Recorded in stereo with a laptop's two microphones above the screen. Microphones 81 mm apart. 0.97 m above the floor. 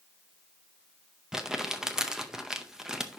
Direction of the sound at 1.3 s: 5° right (ahead or behind).